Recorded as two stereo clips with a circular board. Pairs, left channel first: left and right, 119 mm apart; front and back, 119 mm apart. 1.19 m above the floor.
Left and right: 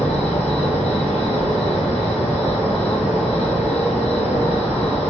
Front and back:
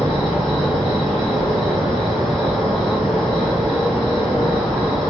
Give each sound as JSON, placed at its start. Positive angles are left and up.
{"t": 0.0, "sound": "an insect", "azimuth_deg": 90, "distance_m": 0.9}